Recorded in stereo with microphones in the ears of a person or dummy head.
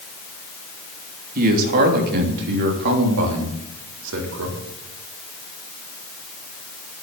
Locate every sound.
1.4 s a man speaking: 50° right (ahead or behind), 3 m; by 4.6 s 80° right, 4 m